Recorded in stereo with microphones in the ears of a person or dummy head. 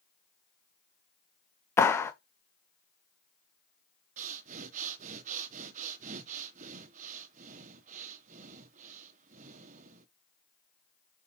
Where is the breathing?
45° right (ahead or behind), 1.1 m.